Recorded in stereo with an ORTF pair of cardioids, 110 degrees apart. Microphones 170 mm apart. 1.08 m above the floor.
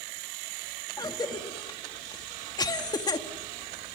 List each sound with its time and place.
1.0 s a cough: 25° left, 1.5 m